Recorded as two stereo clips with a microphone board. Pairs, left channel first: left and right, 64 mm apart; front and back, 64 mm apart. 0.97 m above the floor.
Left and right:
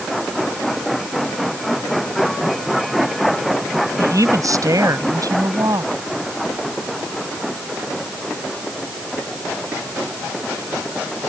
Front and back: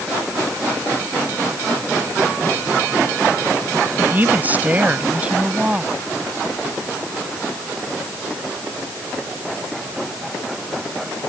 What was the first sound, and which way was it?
A woman speaking, 125° right.